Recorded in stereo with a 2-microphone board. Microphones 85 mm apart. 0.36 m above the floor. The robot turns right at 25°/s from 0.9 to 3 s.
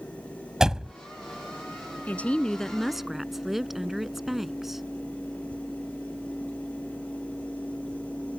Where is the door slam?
5° right (ahead or behind).